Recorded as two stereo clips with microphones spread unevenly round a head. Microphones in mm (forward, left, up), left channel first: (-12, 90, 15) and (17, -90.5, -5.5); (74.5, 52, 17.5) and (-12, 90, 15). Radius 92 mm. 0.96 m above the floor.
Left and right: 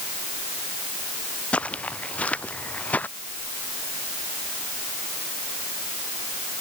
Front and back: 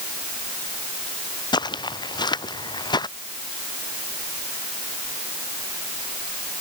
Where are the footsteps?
15° left.